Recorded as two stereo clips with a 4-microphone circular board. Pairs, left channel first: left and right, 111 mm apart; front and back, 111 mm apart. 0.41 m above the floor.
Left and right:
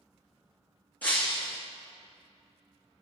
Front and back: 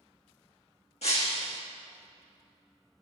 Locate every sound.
1.0 s breaking glass: 15° left, 2 m